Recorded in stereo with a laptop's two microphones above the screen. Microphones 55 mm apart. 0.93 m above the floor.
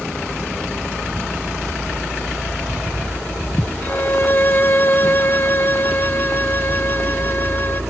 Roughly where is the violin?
Left.